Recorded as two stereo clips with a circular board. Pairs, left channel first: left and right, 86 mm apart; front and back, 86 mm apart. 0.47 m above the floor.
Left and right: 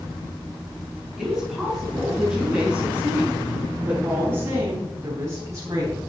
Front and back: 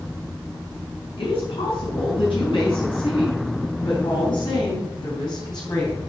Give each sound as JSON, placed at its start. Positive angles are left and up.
{"t": 1.2, "sound": "a woman speaking", "azimuth_deg": -5, "distance_m": 6.0}